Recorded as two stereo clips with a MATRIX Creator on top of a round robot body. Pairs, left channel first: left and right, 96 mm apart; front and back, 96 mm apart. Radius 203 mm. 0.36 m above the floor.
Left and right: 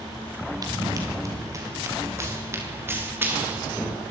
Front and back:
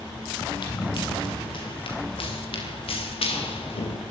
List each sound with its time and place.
0.6 s running footsteps: 40° right, 7.5 m; by 4.0 s 15° right, 7 m